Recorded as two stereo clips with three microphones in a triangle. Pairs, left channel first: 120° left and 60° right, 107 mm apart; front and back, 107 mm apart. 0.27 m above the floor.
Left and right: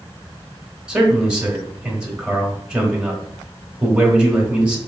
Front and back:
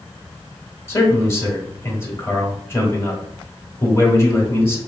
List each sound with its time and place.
0.9 s a man speaking: 10° left, 0.9 m